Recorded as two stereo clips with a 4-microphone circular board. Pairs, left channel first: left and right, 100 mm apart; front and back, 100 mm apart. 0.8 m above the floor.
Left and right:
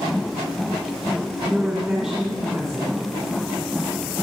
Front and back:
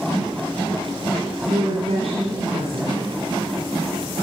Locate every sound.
1.4 s a woman speaking: straight behind, 2.5 m